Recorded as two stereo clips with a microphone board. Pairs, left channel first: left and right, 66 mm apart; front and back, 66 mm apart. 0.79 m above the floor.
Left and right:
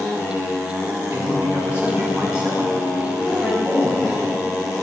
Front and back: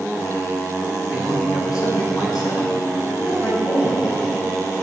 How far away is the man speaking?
About 4.5 m.